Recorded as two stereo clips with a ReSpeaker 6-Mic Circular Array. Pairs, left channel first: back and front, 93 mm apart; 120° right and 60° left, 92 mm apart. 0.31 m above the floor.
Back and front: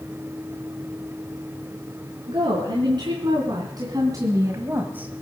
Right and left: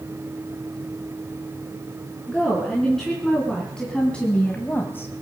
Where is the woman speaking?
30° right, 3.5 m; by 5.1 s 70° right, 1.3 m.